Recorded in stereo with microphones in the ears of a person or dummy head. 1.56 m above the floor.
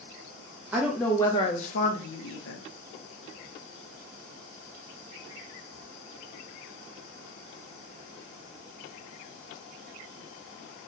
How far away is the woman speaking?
About 0.6 m.